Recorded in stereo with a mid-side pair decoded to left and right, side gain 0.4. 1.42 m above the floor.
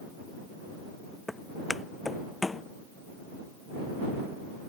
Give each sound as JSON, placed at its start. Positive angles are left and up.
{"t": 1.3, "sound": "footsteps", "azimuth_deg": 15}